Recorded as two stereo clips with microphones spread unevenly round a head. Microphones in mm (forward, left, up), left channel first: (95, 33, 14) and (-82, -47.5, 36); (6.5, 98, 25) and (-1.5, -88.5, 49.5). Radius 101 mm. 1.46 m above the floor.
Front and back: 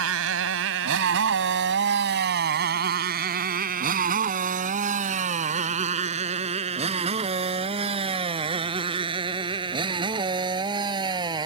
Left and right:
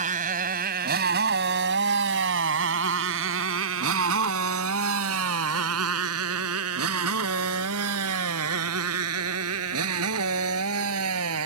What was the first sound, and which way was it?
A motorcycle, 145° right.